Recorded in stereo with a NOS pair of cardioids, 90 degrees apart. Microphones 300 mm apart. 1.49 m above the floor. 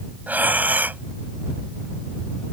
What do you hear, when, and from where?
0.3 s breathing: 5° right